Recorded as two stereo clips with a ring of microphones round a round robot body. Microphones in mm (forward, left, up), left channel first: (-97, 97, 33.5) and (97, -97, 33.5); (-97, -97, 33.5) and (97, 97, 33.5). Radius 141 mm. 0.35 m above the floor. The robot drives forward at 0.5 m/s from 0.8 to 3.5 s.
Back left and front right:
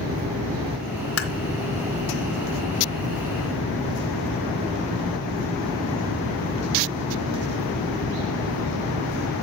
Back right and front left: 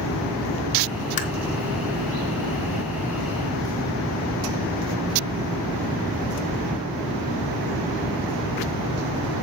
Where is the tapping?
165° left, 2 m.